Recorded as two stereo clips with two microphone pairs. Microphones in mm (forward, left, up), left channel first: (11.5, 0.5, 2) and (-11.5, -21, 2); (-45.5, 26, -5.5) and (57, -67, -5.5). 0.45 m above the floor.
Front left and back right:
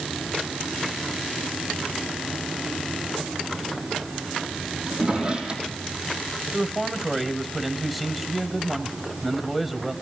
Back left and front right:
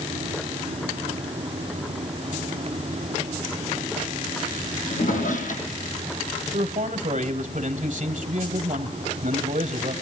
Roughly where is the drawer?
Behind.